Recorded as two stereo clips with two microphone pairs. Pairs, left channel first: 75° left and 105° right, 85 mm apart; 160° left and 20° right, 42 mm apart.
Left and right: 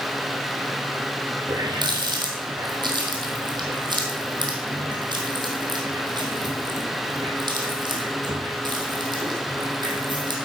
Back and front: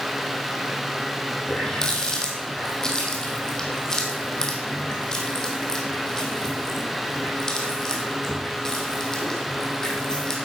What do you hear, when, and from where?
1.5 s a running tap: 130° right, 3.5 m